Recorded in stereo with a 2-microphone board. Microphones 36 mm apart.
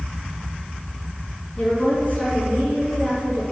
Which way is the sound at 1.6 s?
40° left (ahead or behind).